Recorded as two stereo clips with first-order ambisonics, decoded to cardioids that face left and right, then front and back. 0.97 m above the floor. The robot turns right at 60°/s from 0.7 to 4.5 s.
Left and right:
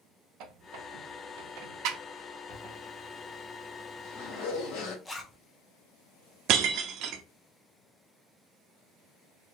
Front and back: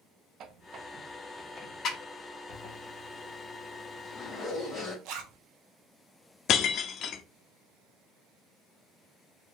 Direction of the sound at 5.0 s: 170° left.